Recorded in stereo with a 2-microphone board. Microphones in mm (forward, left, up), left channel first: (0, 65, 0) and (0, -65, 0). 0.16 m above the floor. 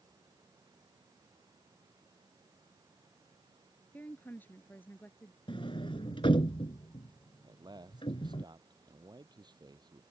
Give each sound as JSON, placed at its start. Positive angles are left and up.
{"t": 3.9, "sound": "a woman speaking", "side_deg": 15}
{"t": 5.5, "sound": "a sliding door", "side_deg": 40}
{"t": 7.4, "sound": "a man speaking", "side_deg": -35}